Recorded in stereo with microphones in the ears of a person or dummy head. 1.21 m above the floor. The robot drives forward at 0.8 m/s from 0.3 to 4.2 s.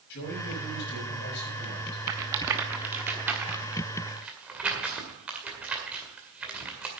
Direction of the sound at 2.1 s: 10° right (ahead or behind).